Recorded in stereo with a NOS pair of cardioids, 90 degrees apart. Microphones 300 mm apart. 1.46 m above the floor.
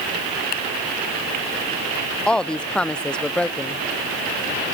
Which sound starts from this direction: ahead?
A woman speaking, at 2.3 s.